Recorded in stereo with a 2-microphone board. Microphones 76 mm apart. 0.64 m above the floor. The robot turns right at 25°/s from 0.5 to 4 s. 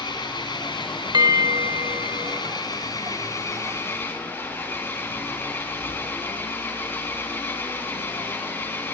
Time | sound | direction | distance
0.0 | an engine running | 65° left | 5 m
1.1 | a bell | 65° right | 1.6 m